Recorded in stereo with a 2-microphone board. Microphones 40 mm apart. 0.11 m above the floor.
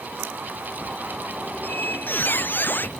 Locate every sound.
1.6 s a squeak: 55° left (ahead or behind)